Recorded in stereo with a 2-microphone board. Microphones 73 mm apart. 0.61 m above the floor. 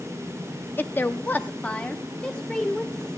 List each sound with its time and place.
0.8 s a woman speaking: 25° left (ahead or behind), 0.6 m; by 3.2 s 10° left (ahead or behind), 1.6 m